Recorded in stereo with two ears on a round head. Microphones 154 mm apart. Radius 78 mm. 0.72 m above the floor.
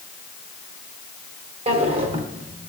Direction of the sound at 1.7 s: 35° right (ahead or behind).